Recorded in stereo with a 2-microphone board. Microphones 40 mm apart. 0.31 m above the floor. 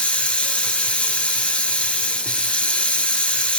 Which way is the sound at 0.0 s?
30° left (ahead or behind).